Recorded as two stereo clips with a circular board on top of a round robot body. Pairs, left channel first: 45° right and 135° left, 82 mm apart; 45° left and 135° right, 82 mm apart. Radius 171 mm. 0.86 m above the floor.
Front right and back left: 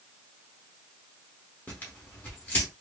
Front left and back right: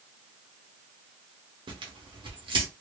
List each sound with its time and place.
1.7 s tearing paper: 115° right, 0.7 m